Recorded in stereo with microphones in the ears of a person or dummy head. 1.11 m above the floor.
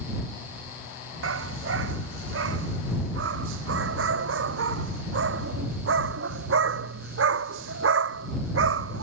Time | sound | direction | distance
1.2 | a dog barking | 75° right (ahead or behind) | ?